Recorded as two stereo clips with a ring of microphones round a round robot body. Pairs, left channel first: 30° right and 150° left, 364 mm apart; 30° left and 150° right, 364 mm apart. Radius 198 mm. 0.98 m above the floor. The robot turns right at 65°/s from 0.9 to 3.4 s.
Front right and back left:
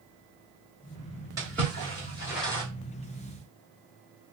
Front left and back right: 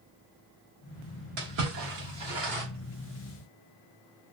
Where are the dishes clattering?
No dishes clattering in this recording.